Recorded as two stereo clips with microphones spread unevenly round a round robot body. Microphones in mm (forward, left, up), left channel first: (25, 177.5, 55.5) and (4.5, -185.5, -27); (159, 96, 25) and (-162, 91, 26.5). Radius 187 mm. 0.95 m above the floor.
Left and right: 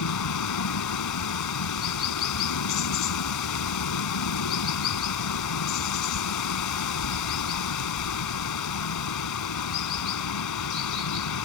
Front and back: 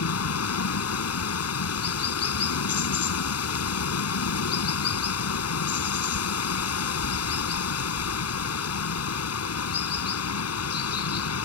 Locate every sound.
0.0 s running water: 45° left